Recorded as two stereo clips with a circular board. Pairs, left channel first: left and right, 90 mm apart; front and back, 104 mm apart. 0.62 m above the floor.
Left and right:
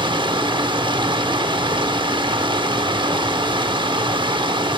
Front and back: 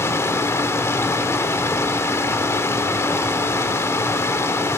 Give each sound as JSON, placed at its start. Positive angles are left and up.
{"t": 0.0, "sound": "running water", "azimuth_deg": -65, "distance_m": 0.8}